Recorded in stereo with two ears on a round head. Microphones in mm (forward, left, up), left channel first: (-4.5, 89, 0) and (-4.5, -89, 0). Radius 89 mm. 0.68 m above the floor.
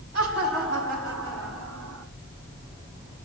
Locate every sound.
0.1 s laughter: 60° right (ahead or behind), 6 m; by 2.0 s 70° right (ahead or behind), 6 m